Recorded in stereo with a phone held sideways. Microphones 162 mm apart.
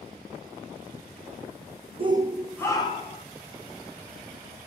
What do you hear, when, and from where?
2.0 s a shout: 35° right (ahead or behind), 0.5 m; by 3.2 s 40° left (ahead or behind), 0.9 m